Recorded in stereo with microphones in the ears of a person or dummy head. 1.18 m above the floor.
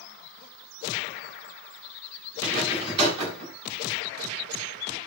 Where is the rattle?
35° right (ahead or behind), 7.5 m.